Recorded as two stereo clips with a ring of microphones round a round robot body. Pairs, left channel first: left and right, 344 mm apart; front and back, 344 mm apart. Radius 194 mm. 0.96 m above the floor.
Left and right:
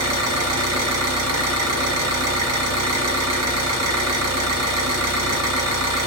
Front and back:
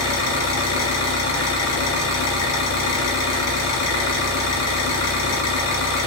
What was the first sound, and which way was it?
An engine running, 50° right.